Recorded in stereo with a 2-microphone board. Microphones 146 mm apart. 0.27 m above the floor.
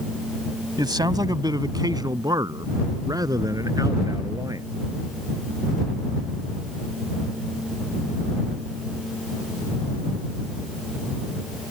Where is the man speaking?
30° right (ahead or behind); by 4.7 s 25° right (ahead or behind).